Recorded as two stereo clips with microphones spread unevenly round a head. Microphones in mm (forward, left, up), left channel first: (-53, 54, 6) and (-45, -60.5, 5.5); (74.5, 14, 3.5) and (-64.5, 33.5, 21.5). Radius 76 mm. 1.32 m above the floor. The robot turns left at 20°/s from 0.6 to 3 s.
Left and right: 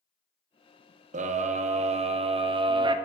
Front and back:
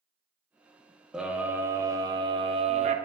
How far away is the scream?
About 0.6 m.